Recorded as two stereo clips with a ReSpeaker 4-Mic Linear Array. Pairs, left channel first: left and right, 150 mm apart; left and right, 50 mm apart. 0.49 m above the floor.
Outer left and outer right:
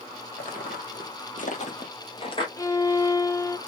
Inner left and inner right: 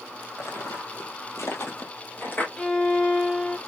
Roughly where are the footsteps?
Left.